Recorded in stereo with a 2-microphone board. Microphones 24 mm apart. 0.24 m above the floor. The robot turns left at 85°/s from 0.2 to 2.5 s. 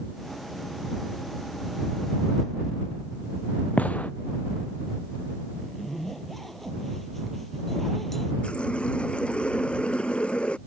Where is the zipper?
5° left (ahead or behind).